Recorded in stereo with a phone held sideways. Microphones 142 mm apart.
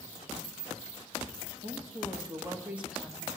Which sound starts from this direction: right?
A woman speaking, at 1.6 s.